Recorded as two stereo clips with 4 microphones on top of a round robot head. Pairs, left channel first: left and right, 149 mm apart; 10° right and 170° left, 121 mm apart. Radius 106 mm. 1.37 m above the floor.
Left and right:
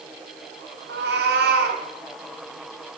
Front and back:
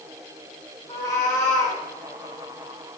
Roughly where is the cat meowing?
Right.